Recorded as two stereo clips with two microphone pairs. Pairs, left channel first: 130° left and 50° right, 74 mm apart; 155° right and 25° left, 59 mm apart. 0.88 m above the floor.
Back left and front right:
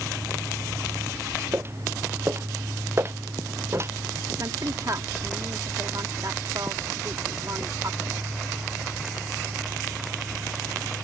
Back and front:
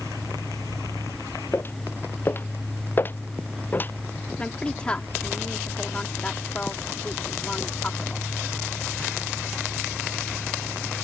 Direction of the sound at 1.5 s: 105° right.